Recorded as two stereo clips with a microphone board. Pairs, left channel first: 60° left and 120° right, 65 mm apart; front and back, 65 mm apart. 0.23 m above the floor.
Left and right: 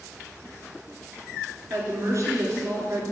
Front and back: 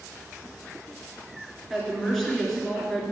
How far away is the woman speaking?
About 2.5 m.